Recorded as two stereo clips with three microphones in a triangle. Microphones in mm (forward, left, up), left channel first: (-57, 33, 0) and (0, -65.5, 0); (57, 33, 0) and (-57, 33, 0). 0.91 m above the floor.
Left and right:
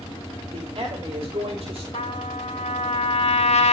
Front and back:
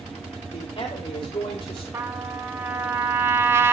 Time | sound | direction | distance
0.5 | a man speaking | 30° right | 2.5 m
1.9 | a trumpet | 115° left | 1.7 m